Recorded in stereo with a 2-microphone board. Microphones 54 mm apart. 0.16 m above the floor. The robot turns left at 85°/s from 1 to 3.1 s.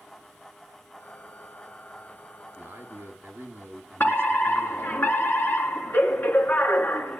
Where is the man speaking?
60° right, 2.5 m; by 5.0 s 105° right, 2.5 m.